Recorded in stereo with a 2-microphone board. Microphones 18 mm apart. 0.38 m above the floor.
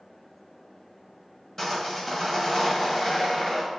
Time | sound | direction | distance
1.6 | sawing | 30° left (ahead or behind) | 1.8 m